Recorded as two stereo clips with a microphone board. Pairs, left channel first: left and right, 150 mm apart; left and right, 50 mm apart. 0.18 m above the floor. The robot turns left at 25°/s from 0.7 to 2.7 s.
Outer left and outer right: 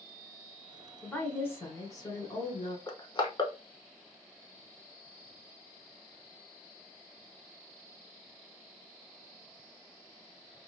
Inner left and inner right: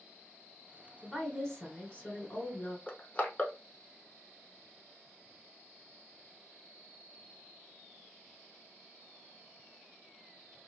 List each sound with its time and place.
1.0 s a woman speaking: 165° left, 1.2 m; by 2.8 s 120° left, 1.2 m
2.9 s crushing: 30° left (ahead or behind), 0.7 m